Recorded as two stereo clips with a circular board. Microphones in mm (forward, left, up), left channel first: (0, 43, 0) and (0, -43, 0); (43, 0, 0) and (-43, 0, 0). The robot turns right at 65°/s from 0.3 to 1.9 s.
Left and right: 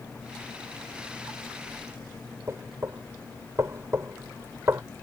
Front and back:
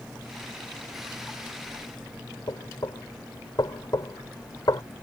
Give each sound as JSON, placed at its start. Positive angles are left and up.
{"t": 2.5, "sound": "knocking", "azimuth_deg": -35}